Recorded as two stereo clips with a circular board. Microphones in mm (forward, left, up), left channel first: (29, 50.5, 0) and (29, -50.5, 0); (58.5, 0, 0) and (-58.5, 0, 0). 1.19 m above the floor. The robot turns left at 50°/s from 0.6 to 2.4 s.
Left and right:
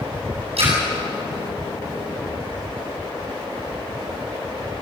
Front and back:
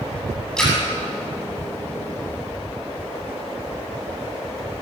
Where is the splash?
85° right, 8 m; by 0.8 s 90° right, 8 m.